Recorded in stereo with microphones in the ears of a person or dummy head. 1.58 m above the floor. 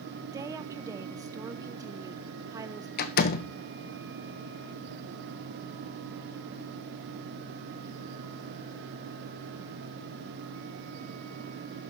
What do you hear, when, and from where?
0.3 s a woman speaking: 15° right (ahead or behind), 1.0 m
3.0 s a door slam: 55° left (ahead or behind), 1.0 m